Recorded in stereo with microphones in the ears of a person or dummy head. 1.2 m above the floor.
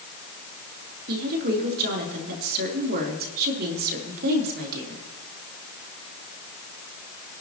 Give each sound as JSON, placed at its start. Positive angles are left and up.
{"t": 1.1, "sound": "a woman speaking", "side_deg": -50, "distance_m": 3.5}